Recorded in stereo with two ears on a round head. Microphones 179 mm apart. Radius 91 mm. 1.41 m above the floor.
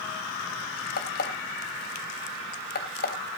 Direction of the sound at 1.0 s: 50° left (ahead or behind).